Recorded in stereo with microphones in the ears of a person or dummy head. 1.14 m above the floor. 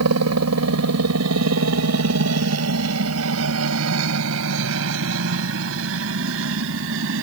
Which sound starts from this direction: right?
A helicopter, at 0.0 s.